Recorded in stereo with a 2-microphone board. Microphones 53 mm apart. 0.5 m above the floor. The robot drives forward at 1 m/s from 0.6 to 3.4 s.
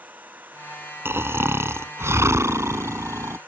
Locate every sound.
0.0 s an engine running: 35° right (ahead or behind); by 3.5 s 40° right (ahead or behind)
1.1 s snoring: 50° right (ahead or behind); by 3.4 s 75° right (ahead or behind)